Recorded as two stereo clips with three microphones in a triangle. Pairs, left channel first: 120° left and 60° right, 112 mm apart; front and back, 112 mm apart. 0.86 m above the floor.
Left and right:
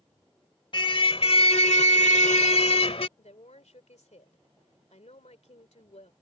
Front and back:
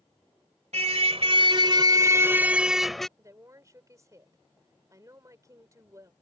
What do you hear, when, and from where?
0.7 s a car horn: 165° left; by 3.1 s 85° left
3.2 s a woman speaking: 120° left